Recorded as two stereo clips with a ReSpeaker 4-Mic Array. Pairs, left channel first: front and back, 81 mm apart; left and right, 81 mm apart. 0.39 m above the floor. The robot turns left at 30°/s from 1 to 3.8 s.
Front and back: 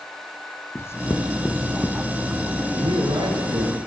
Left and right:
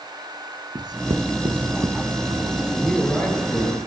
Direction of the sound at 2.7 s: 175° left.